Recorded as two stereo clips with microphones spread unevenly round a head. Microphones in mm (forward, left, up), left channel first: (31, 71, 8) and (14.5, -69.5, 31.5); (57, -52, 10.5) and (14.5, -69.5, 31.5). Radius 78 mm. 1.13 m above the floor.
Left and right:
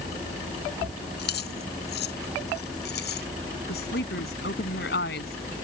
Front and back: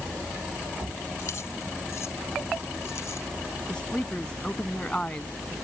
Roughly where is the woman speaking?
Left.